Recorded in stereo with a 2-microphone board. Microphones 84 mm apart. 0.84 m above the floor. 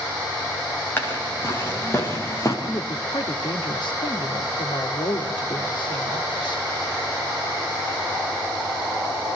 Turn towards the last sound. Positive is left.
turn(degrees=70)  # may be behind; listen again after turning